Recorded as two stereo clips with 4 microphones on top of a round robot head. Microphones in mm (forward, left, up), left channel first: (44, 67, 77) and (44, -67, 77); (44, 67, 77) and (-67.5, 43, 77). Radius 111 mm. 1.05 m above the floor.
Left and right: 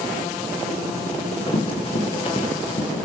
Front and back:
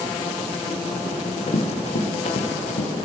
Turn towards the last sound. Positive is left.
turn(degrees=40)